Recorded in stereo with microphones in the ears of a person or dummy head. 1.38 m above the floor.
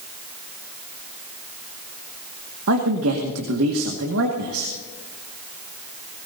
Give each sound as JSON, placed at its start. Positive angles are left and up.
{"t": 2.7, "sound": "a man speaking", "side_deg": -80, "distance_m": 1.8}